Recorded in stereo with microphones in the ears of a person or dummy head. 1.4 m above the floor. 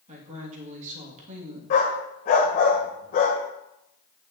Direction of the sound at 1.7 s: 35° left (ahead or behind).